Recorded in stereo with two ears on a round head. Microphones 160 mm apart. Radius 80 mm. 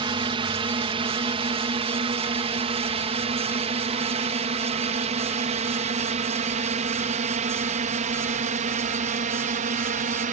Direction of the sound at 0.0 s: 30° right (ahead or behind).